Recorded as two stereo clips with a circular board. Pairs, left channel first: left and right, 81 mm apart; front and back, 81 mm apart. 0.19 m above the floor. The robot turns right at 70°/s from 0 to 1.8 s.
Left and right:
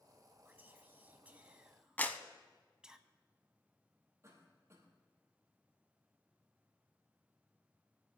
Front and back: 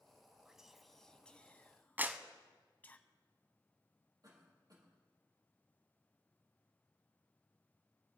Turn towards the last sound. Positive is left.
turn(degrees=-145)